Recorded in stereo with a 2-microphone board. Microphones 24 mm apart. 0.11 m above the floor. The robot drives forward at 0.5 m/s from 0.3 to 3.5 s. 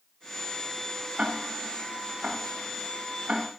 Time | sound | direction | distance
1.2 | ticking | 50° right (ahead or behind) | 5 m